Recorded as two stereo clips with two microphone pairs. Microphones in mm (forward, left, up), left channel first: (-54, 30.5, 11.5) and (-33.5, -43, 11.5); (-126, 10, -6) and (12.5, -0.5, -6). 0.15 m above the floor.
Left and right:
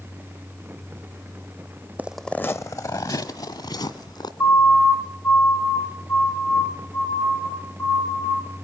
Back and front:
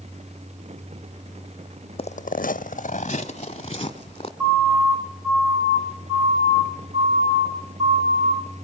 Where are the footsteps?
145° right, 0.5 m; by 4.3 s 125° left, 2.5 m.